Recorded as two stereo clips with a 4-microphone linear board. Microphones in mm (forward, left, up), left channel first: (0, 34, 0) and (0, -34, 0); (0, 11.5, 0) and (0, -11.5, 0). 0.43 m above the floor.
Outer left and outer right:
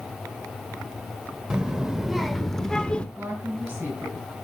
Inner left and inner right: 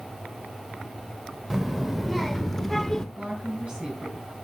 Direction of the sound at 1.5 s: 10° right (ahead or behind).